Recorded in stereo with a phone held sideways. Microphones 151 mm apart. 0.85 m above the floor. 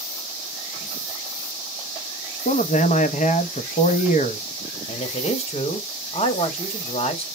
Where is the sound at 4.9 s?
45° left (ahead or behind), 1.0 m.